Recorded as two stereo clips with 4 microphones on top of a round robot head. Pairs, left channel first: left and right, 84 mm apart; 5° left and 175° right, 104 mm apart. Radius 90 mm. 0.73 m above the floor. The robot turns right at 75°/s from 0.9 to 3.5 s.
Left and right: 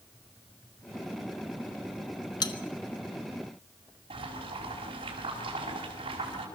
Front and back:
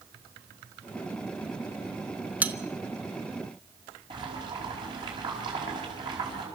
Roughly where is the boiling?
Behind right.